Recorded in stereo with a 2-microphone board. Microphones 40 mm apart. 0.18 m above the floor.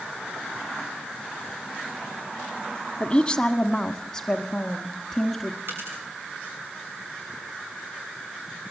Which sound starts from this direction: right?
A dropped coin, at 5.7 s.